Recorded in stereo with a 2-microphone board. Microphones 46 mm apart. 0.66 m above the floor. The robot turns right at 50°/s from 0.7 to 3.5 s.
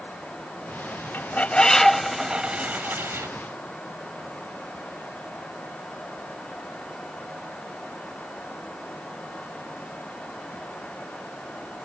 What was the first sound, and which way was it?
A bird, 135° left.